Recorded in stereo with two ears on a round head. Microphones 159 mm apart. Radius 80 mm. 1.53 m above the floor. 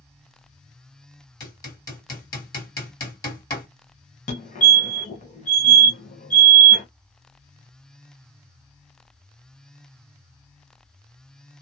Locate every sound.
1.4 s hammering: 20° left (ahead or behind), 1.9 m
4.3 s a fire alarm: 40° left (ahead or behind), 1.0 m